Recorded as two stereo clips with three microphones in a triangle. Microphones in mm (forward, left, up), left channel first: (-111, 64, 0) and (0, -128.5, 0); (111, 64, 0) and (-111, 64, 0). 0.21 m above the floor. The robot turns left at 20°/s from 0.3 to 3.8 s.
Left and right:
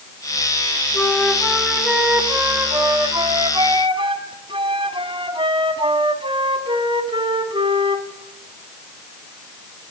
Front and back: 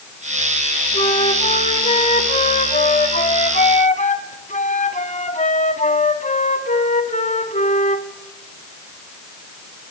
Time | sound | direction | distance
0.9 | a flute | 40° left | 1.5 m